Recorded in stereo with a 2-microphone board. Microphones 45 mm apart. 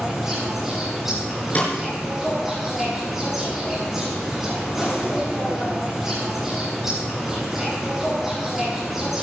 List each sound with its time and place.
0.0 s an insect: 10° right (ahead or behind), 7.5 m
1.6 s a snare drum: 35° left (ahead or behind), 4.5 m